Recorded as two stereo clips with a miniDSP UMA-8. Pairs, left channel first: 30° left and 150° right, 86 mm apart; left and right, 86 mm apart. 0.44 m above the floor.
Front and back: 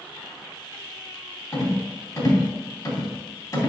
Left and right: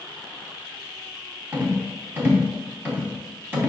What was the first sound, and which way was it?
A rattle, 25° right.